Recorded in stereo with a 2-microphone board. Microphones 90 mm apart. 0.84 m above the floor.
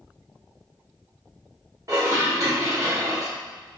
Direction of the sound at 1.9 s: 40° right (ahead or behind).